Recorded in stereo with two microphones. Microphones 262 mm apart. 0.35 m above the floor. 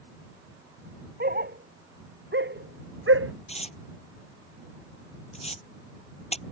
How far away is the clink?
I don't hear a clink.